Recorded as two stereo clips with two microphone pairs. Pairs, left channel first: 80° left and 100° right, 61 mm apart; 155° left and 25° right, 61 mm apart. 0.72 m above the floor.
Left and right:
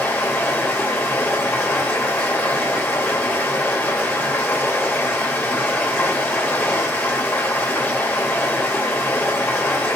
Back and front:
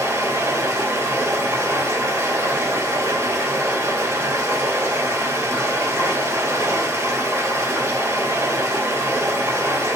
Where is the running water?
20° left, 2.5 m.